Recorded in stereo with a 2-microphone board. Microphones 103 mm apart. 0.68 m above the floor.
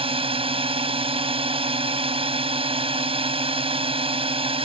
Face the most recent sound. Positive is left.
turn(degrees=-70)  # may be behind; listen again after turning